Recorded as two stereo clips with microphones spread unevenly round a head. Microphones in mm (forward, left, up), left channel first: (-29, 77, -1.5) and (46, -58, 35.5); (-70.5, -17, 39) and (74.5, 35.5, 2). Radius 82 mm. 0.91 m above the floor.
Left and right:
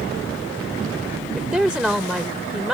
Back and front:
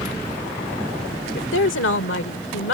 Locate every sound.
1.4 s a woman speaking: 150° right